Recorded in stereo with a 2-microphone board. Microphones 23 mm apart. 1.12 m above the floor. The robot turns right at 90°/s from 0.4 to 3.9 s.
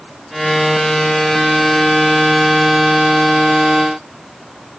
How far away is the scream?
I don't hear a scream.